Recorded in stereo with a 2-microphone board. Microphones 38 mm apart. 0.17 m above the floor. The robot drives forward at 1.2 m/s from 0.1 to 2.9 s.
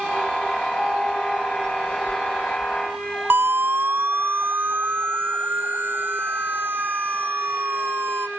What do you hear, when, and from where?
3.3 s a siren: 70° right (ahead or behind); by 8.3 s 75° right (ahead or behind)